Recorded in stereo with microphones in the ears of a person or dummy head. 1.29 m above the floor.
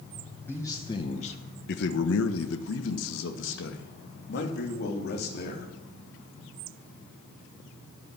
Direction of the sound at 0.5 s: 15° left (ahead or behind).